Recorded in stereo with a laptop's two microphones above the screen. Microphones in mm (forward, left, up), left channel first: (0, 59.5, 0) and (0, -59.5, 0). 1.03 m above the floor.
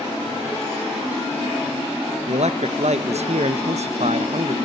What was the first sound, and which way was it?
A man speaking, 65° right (ahead or behind).